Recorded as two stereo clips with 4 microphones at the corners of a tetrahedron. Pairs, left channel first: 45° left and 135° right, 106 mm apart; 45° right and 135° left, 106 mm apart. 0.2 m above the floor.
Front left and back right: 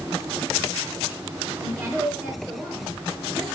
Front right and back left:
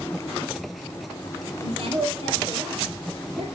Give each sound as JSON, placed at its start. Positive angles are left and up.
{"t": 1.6, "sound": "a woman speaking", "azimuth_deg": 160, "distance_m": 3.5}